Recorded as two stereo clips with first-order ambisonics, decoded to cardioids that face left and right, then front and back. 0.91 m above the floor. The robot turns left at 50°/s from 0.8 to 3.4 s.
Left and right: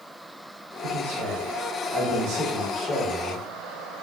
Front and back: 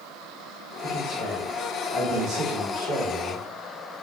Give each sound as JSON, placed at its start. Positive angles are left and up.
{"t": 0.8, "sound": "a man speaking", "azimuth_deg": -60, "distance_m": 1.4}